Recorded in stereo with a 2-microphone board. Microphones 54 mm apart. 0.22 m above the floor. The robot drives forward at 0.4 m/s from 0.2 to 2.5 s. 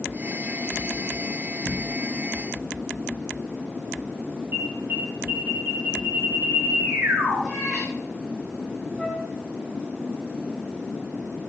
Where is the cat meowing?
10° right (ahead or behind), 5.5 m.